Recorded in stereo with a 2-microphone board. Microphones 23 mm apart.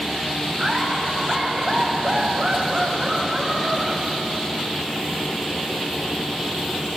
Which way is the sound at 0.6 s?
35° right (ahead or behind).